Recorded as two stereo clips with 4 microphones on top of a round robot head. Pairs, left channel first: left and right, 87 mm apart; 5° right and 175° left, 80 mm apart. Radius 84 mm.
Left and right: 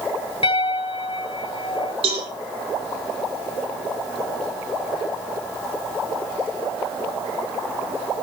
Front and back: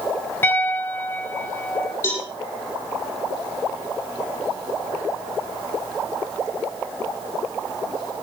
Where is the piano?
60° left, 2 m.